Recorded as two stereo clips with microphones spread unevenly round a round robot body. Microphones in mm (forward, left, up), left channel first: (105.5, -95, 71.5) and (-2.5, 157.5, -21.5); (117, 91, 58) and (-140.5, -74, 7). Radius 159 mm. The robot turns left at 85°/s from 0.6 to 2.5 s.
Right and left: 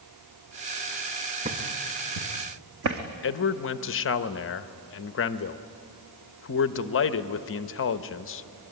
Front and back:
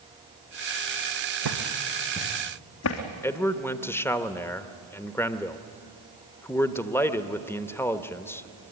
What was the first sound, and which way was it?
Footsteps, 165° right.